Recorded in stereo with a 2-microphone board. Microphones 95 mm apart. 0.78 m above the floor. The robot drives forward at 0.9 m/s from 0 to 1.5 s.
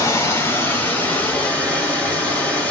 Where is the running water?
35° left (ahead or behind), 1.1 m; by 2.7 s 20° left (ahead or behind), 2.5 m.